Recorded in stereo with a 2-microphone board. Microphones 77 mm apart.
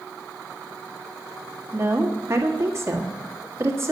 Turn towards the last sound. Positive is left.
turn(degrees=-35)  # may be behind; listen again after turning